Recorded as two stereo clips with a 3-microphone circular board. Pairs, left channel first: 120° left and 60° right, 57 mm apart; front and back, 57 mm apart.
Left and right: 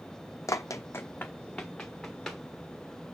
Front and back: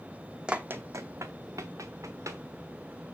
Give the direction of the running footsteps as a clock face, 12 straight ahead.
8 o'clock.